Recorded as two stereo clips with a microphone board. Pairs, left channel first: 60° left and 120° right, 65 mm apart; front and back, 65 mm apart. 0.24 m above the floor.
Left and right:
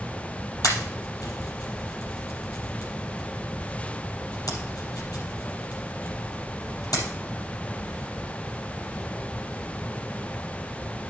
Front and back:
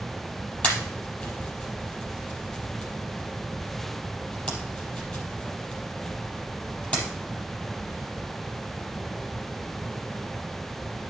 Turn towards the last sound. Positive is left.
turn(degrees=70)